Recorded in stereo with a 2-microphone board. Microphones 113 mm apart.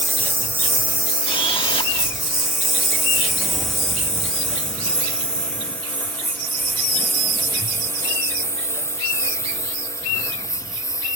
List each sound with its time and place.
0.0 s a lawn mower: 20° right (ahead or behind); by 11.2 s 30° left (ahead or behind)
1.2 s a camera shutter: 50° left (ahead or behind)